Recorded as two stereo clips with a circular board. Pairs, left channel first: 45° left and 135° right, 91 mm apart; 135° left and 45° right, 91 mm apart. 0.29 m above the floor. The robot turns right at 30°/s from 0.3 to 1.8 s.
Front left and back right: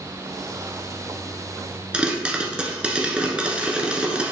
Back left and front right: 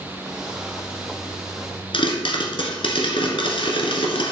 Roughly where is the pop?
Behind left.